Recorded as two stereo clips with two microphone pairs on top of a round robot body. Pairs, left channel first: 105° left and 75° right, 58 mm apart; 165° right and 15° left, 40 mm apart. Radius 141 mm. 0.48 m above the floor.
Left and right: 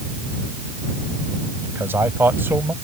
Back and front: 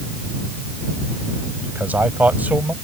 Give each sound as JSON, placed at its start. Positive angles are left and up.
{"t": 1.6, "sound": "a man speaking", "azimuth_deg": -30}